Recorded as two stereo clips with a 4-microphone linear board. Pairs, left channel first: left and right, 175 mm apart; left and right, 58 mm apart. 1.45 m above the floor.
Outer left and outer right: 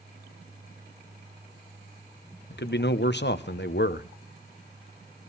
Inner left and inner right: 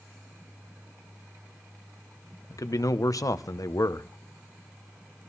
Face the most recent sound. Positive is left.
turn(degrees=85)